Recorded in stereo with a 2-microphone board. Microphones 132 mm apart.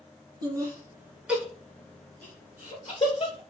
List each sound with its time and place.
0.4 s laughter: 30° right (ahead or behind), 1.3 m; by 3.4 s 40° left (ahead or behind), 1.5 m